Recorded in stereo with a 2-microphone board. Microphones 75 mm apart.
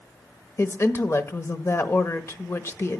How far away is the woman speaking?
About 1.1 m.